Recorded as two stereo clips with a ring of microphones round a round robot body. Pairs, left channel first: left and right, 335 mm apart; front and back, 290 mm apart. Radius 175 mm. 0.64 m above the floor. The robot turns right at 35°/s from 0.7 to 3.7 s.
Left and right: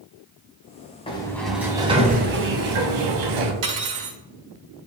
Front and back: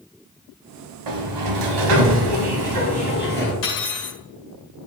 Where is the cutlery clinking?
60° right, 1.7 m; by 4.2 s 55° right, 1.7 m.